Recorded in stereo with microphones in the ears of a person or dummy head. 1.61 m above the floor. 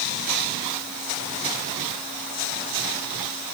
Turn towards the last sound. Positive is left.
No sound to turn to.